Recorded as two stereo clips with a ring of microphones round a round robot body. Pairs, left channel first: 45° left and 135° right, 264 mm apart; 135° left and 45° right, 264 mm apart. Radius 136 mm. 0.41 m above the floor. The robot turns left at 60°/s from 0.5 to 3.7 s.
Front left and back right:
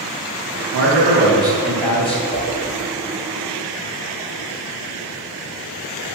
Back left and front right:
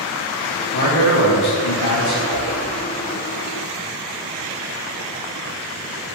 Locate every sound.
0.7 s a man speaking: 165° right, 2 m; by 2.2 s 105° left, 2 m
2.3 s a whoosh: 120° left, 2.5 m; by 2.6 s 105° left, 2.5 m